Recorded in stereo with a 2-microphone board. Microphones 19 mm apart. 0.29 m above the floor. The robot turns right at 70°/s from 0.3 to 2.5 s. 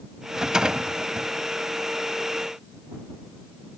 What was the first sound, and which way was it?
A rattle, 150° right.